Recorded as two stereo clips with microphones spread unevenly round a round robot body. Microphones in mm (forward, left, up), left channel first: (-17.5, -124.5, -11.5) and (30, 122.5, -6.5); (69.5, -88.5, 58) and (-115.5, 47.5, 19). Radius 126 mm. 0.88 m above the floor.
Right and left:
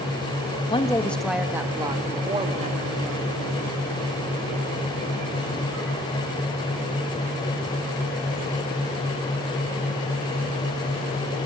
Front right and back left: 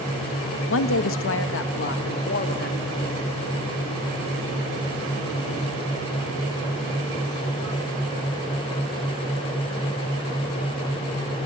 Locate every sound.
0.7 s a woman speaking: 40° right, 1.1 m; by 3.4 s 20° left, 2.5 m